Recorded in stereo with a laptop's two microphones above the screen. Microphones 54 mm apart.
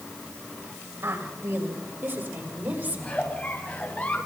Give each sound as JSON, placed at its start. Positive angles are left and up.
{"t": 1.0, "sound": "a woman speaking", "side_deg": -55, "distance_m": 6.0}
{"t": 3.0, "sound": "a giggle", "side_deg": 25, "distance_m": 7.0}